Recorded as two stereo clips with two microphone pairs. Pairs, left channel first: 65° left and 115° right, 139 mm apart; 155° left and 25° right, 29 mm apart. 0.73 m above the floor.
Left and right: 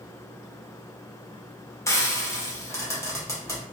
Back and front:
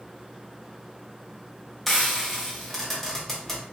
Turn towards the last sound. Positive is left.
turn(degrees=90)